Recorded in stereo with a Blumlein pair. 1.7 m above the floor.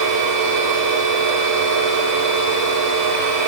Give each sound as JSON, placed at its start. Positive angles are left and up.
{"t": 0.0, "sound": "a machine running", "azimuth_deg": -45, "distance_m": 4.5}